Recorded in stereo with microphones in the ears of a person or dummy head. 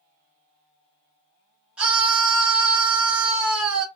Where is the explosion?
I don't hear an explosion.